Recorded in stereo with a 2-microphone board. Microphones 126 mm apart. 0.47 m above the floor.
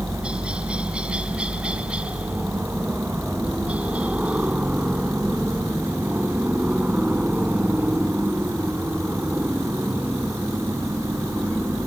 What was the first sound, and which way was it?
A helicopter, 10° right (ahead or behind).